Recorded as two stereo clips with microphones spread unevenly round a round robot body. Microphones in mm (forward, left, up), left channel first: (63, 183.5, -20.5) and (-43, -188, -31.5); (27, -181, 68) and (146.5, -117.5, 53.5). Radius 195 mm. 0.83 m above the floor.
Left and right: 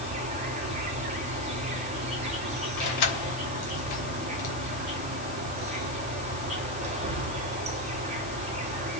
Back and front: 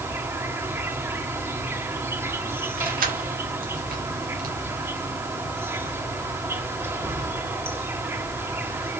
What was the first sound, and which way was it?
An insect, 35° right.